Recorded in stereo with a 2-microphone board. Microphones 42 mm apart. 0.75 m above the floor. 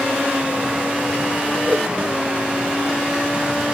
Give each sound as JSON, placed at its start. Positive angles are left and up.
{"t": 1.7, "sound": "a whoosh", "side_deg": -40}